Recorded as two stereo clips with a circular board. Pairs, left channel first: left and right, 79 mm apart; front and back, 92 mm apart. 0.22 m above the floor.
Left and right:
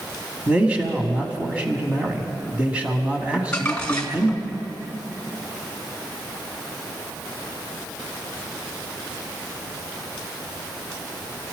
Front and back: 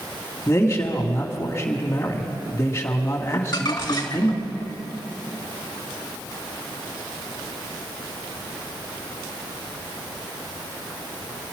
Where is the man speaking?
25° right, 1.9 m.